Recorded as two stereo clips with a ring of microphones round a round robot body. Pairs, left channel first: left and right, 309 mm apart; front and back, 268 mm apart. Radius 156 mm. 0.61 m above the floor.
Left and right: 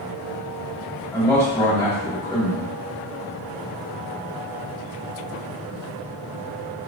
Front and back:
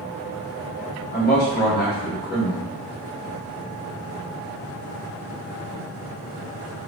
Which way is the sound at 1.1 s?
15° left.